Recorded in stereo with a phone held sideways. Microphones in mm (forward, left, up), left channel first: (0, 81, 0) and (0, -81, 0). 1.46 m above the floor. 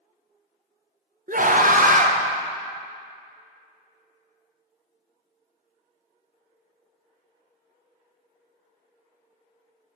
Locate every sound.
1.3 s a scream: 55° right (ahead or behind), 0.8 m